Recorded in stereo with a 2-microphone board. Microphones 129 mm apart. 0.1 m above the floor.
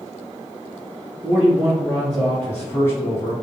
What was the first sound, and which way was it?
A man speaking, 15° right (ahead or behind).